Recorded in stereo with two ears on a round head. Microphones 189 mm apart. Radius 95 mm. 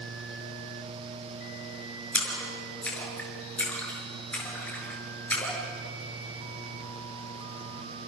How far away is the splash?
About 6.5 m.